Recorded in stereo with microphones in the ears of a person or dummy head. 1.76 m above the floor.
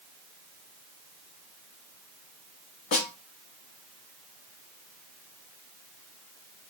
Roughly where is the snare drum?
Left.